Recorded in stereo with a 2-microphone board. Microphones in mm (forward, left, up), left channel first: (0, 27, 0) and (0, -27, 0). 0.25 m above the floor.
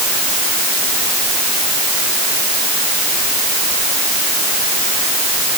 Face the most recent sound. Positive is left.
No sound to turn to.